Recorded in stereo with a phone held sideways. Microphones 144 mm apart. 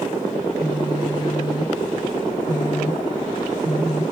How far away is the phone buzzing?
About 2.5 m.